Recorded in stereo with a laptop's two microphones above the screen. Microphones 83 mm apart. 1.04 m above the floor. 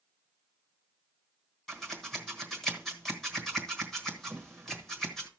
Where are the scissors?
5° left (ahead or behind), 1.3 m.